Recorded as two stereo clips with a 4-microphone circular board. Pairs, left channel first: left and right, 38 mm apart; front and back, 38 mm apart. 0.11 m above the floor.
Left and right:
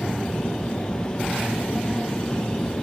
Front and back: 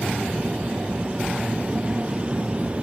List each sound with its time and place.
0.0 s an aircraft: 110° left